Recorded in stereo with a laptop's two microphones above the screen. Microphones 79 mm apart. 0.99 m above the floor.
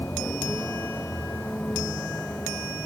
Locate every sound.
0.0 s a vehicle: 25° left (ahead or behind); by 2.9 s 15° left (ahead or behind)